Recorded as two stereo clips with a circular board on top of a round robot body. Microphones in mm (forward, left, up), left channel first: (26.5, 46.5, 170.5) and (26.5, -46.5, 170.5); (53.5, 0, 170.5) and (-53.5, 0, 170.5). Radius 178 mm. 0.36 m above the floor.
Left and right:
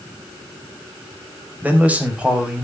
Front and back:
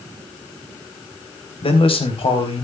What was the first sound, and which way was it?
A man speaking, 20° right.